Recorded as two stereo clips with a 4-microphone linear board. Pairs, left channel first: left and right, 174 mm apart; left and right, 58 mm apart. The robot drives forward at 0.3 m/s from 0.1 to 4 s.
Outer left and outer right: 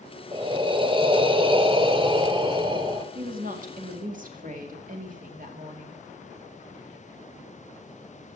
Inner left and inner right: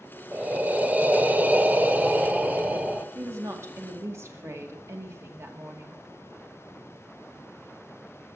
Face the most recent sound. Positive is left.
turn(degrees=-50)  # may be behind; listen again after turning